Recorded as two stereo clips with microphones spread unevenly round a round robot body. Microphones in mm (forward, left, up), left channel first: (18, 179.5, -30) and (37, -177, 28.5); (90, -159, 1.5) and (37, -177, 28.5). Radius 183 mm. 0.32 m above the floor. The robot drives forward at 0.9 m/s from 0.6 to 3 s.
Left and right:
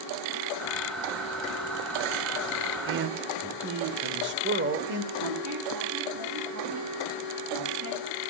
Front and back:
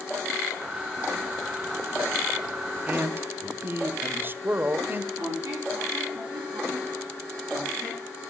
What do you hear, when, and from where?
2.9 s a man speaking: 80° right, 1.0 m; by 5.1 s 100° right, 1.0 m
5.2 s a squeak: 140° right, 8 m